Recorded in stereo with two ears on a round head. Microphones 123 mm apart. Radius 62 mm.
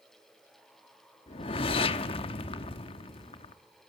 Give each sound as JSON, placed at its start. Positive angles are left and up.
{"t": 1.3, "sound": "a whoosh", "side_deg": 45, "distance_m": 0.9}